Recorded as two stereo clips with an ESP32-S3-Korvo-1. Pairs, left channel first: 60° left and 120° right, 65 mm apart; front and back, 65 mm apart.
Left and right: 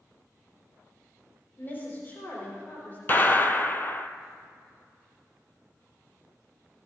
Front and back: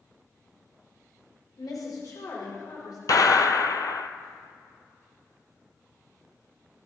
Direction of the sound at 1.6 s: Straight ahead.